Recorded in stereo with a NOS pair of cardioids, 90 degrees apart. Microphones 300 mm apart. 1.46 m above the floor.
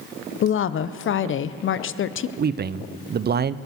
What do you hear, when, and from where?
0.4 s a woman speaking: 40° left, 0.7 m
2.4 s a man speaking: 35° right, 0.6 m